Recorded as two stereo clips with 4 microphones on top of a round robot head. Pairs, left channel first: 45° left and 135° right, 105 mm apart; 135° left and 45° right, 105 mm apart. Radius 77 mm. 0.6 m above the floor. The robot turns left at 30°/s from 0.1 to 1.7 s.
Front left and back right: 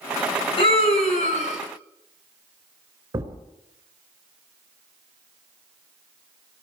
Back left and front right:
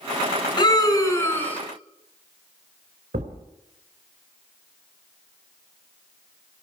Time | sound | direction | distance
0.6 | a scream | 85° left | 8 m
3.1 | a thud | 70° right | 4 m